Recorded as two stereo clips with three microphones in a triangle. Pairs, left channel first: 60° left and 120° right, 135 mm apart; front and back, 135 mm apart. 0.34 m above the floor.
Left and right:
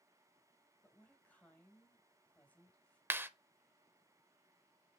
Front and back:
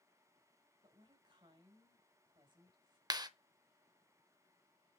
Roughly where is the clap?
Behind.